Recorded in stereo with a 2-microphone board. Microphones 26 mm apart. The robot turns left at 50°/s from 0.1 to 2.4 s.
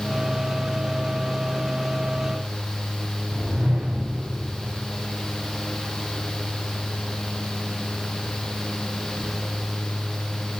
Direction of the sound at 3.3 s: 75° right (ahead or behind).